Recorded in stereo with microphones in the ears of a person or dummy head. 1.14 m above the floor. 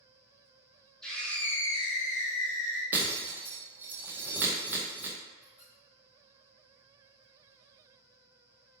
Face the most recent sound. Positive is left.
turn(degrees=10)  # may be behind; listen again after turning